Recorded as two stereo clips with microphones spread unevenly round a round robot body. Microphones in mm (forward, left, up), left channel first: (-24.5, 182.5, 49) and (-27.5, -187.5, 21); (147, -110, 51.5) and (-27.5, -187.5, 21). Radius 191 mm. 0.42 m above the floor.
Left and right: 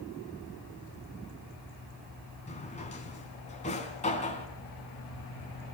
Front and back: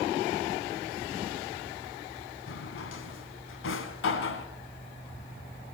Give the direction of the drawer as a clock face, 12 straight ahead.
11 o'clock.